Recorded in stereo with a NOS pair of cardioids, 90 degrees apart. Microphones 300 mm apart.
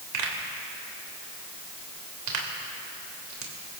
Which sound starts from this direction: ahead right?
A pop, at 0.1 s.